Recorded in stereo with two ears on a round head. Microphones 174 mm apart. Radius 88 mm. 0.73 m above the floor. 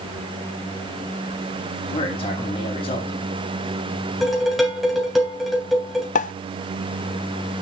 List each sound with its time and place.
1.9 s a man speaking: 30° left (ahead or behind), 4.5 m
4.2 s dishes clattering: centre (ahead or behind), 3 m
6.2 s a pop: 40° left (ahead or behind), 0.5 m